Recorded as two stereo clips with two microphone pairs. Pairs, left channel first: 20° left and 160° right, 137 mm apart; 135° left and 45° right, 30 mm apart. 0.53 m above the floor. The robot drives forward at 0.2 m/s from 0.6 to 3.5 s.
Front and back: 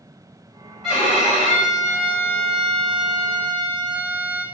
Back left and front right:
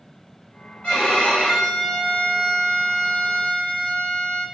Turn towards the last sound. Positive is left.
turn(degrees=130)